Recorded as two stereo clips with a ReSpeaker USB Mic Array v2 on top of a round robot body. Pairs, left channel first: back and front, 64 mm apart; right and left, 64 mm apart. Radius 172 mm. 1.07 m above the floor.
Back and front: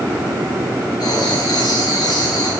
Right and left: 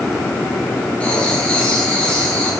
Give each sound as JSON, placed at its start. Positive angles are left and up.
{"t": 1.0, "sound": "writing", "azimuth_deg": -165, "distance_m": 7.0}